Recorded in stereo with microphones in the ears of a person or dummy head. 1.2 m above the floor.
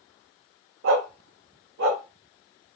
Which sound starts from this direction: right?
A dog barking, at 0.8 s.